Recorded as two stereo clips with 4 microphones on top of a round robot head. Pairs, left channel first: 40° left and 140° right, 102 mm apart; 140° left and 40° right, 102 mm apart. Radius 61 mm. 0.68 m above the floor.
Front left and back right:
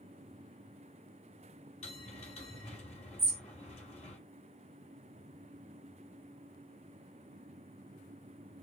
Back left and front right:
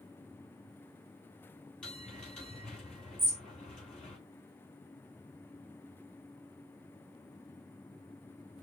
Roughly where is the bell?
Ahead left.